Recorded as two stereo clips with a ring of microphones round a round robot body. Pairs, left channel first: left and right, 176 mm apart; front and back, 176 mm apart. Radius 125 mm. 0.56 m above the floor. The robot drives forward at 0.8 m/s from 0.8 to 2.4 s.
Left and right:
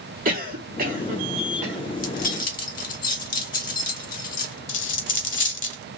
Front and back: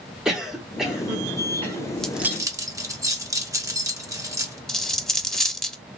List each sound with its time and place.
0.2 s a cough: 95° right, 1.4 m; by 1.8 s 130° right, 1.7 m
1.9 s keys jangling: 80° left, 0.8 m; by 4.6 s 110° left, 0.9 m
4.7 s a dropped coin: 85° left, 0.9 m